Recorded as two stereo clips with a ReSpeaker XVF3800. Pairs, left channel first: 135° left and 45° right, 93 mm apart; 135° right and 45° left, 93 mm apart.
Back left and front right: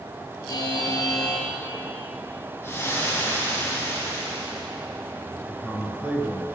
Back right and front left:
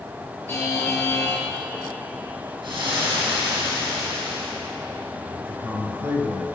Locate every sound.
0.5 s a buzzer: 165° left, 1.8 m
2.6 s frying: 70° left, 3.5 m
5.4 s a man speaking: 15° left, 1.8 m